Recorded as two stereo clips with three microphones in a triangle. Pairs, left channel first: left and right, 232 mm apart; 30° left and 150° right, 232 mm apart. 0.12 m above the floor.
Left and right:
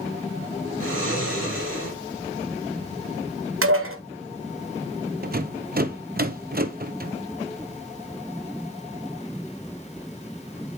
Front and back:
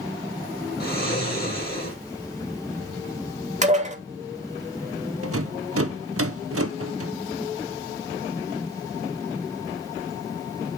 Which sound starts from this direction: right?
Dishes clattering, at 3.6 s.